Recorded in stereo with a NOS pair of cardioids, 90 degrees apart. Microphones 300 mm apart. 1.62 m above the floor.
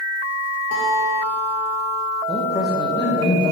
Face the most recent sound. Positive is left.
turn(degrees=15)